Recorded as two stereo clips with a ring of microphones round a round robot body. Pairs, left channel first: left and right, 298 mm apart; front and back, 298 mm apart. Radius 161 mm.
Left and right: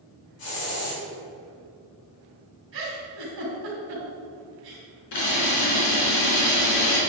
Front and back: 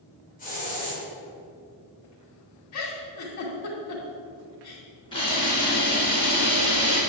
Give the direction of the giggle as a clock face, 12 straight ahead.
1 o'clock.